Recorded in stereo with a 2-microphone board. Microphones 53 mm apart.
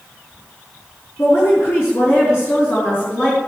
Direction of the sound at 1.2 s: 65° left (ahead or behind).